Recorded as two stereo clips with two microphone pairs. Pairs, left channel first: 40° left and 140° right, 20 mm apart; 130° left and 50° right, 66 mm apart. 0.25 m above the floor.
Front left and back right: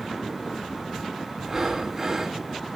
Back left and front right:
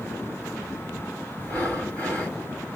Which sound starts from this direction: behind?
Breathing, at 1.4 s.